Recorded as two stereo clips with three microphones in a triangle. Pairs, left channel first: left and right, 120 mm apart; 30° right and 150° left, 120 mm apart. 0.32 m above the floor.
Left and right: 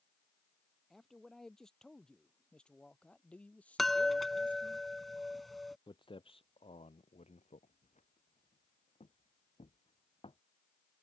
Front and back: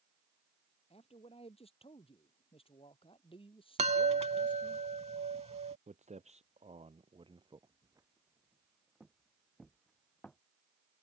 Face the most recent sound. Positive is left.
turn(degrees=50)